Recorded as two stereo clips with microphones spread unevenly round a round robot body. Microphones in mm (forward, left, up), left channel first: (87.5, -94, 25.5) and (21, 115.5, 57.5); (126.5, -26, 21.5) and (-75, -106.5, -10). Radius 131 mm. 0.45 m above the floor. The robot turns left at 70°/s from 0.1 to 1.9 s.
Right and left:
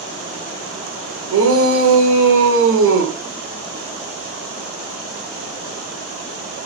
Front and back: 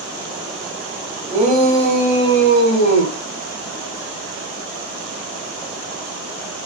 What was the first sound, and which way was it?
A shout, 130° left.